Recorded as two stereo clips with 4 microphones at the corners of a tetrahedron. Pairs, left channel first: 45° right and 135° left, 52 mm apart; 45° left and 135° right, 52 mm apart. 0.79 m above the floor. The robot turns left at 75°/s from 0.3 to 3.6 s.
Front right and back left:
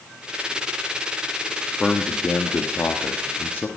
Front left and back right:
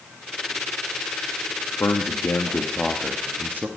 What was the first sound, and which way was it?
A man speaking, 45° left.